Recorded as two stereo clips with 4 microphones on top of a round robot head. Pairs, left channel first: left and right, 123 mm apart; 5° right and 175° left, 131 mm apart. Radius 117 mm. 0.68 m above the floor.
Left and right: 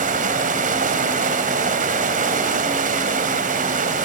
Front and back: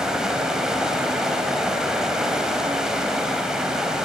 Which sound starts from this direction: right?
Running water, at 0.0 s.